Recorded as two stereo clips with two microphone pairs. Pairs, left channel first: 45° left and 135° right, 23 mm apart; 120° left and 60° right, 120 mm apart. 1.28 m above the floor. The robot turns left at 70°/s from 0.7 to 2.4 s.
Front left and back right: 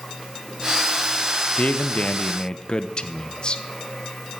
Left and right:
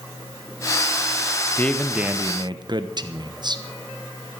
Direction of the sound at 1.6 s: 50° left.